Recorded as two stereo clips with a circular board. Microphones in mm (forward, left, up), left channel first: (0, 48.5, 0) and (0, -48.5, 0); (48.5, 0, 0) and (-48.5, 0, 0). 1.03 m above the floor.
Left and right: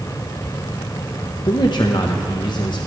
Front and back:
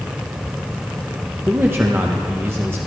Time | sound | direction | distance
1.5 | a man speaking | 120° left | 0.7 m